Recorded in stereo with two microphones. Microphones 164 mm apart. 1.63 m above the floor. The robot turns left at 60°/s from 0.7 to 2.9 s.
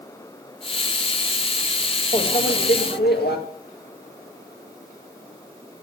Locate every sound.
2.1 s a microwave: 145° left, 1.9 m; by 3.4 s 95° left, 1.9 m